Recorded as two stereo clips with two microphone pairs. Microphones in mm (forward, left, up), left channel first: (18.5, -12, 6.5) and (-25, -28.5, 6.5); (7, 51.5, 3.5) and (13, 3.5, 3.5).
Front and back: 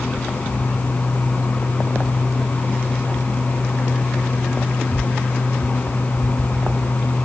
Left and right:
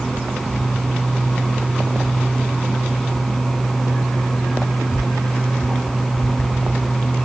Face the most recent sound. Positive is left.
No sound to turn to.